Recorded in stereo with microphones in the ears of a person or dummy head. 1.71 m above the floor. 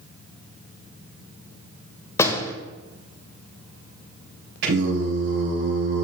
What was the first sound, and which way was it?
A door slam, 20° left (ahead or behind).